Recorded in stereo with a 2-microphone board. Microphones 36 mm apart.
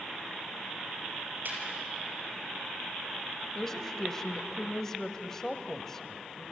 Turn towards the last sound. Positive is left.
turn(degrees=10)  # may be behind; listen again after turning